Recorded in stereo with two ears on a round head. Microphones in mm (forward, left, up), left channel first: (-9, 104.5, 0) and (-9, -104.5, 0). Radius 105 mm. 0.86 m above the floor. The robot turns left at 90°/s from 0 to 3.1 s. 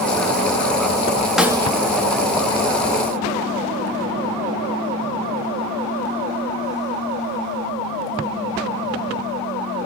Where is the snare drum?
Straight ahead, 0.7 m; by 1.7 s 30° right, 0.7 m.